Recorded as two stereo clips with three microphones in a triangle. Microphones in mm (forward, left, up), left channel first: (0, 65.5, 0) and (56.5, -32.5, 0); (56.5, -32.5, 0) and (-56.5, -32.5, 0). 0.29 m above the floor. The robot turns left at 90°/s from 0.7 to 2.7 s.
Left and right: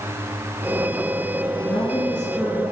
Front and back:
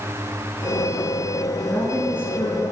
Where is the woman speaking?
85° left, 3.5 m; by 2.7 s 10° right, 3.5 m.